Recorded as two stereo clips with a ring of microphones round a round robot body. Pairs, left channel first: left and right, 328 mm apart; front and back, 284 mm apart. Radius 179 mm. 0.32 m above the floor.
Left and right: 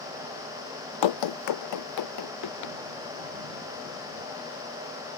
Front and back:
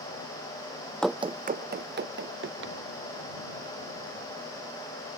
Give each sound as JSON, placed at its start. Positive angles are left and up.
{"t": 1.0, "sound": "running footsteps", "azimuth_deg": 85}